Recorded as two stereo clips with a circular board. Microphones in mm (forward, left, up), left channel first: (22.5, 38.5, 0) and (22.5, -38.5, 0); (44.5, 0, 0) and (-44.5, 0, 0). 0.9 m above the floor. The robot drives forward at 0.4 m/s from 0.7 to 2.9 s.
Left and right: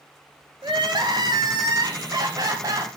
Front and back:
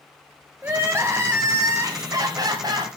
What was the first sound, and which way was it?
Crying, 115° right.